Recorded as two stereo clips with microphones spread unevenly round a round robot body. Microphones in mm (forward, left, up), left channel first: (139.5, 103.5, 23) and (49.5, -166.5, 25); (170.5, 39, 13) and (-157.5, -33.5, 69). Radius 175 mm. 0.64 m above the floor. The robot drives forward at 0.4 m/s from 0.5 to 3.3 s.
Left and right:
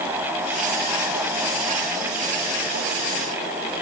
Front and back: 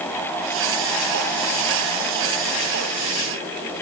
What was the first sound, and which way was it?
Only background noise.